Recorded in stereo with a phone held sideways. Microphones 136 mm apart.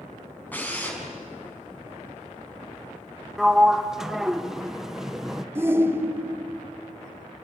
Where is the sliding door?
5° right (ahead or behind), 0.9 m.